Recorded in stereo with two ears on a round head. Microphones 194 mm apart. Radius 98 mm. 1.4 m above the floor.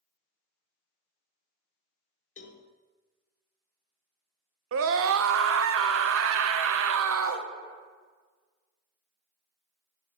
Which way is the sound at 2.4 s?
35° left (ahead or behind).